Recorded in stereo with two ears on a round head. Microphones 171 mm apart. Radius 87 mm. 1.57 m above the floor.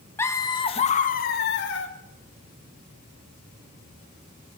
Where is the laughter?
15° left (ahead or behind), 2.5 m; by 1.9 s 75° left (ahead or behind), 2.5 m.